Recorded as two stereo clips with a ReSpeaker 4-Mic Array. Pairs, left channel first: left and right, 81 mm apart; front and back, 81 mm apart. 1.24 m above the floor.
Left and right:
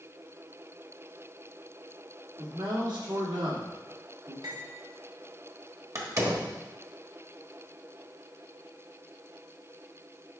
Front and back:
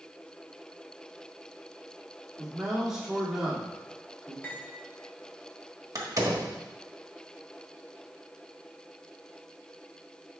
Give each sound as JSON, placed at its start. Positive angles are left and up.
{"t": 2.4, "sound": "a man speaking", "azimuth_deg": -95, "distance_m": 2.5}
{"t": 4.4, "sound": "cutlery clinking", "azimuth_deg": -65, "distance_m": 1.7}
{"t": 6.0, "sound": "a door slam", "azimuth_deg": -135, "distance_m": 1.3}